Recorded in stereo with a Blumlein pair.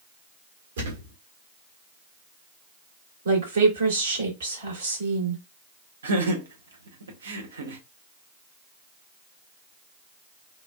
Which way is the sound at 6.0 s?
65° right.